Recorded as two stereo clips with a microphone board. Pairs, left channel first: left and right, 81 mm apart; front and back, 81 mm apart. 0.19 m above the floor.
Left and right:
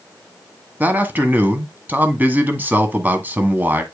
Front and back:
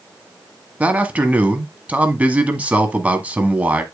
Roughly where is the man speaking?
Behind right.